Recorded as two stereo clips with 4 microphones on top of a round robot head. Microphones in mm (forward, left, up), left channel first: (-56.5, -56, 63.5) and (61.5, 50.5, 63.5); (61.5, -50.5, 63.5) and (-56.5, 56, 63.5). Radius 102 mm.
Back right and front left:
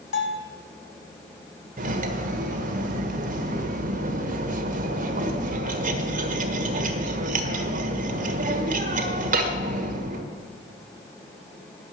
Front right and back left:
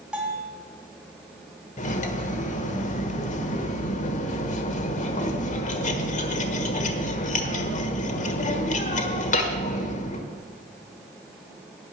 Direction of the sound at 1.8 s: Straight ahead.